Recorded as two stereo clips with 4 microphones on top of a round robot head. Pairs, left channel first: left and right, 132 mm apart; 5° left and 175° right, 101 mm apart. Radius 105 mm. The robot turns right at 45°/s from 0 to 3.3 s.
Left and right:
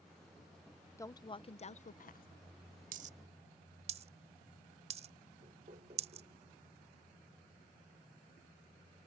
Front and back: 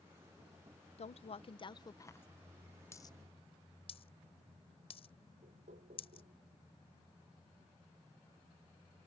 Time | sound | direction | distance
1.0 | a woman speaking | 20° left | ?
2.9 | a dropped coin | 70° right | ?
5.4 | knocking | 145° right | ?